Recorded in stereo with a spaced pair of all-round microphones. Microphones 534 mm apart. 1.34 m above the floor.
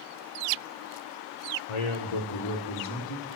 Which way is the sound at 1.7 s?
75° left (ahead or behind).